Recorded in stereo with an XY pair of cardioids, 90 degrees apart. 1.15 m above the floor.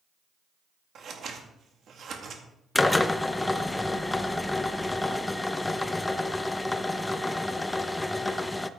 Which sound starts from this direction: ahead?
A drill, at 2.8 s.